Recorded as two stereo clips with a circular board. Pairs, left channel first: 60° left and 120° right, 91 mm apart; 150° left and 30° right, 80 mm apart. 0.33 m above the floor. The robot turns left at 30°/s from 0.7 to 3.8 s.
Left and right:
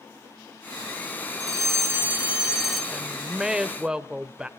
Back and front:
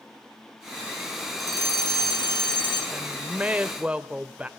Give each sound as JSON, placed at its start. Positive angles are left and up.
{"t": 1.4, "sound": "a fire alarm", "azimuth_deg": -170, "distance_m": 6.0}
{"t": 2.9, "sound": "a woman speaking", "azimuth_deg": -35, "distance_m": 0.9}